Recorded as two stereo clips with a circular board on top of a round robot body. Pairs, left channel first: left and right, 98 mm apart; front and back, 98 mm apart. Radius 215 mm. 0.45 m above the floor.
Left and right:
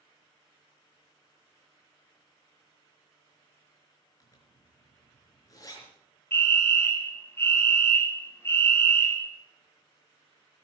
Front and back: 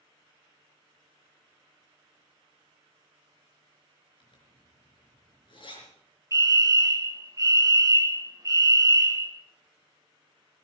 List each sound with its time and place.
4.2 s a zipper: 35° left, 4 m
6.3 s a fire alarm: 145° left, 2.5 m